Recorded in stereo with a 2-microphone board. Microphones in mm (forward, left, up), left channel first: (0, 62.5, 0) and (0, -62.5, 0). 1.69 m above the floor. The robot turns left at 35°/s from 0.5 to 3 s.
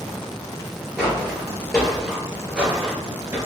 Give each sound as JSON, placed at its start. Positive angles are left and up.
{"t": 1.0, "sound": "footsteps", "side_deg": -5, "distance_m": 2.0}